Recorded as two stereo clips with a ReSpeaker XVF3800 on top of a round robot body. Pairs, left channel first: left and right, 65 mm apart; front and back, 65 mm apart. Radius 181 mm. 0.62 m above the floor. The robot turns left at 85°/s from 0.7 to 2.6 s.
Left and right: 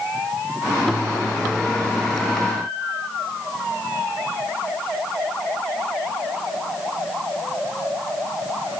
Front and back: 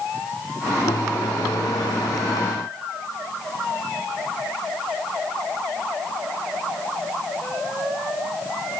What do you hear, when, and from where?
Only background noise.